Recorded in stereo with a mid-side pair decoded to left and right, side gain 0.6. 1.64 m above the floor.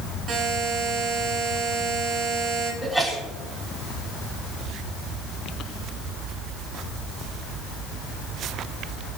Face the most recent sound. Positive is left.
turn(degrees=-10)